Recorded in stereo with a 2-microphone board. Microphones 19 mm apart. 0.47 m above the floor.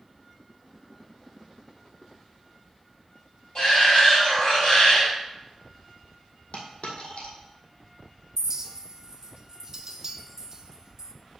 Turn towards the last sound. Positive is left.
turn(degrees=-30)  # may be behind; listen again after turning